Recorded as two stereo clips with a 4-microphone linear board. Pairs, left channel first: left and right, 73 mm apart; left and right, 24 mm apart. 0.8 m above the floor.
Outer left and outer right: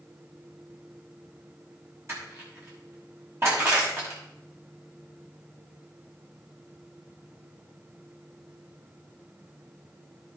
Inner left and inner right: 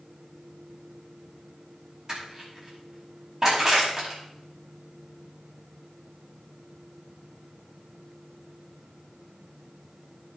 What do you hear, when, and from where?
2.1 s crushing: 35° right (ahead or behind), 6.5 m